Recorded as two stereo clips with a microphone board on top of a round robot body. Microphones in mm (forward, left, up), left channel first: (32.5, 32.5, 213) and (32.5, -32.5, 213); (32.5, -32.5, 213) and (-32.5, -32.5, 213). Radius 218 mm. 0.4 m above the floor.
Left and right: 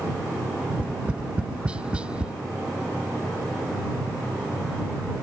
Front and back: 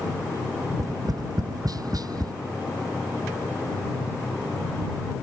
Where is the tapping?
165° right.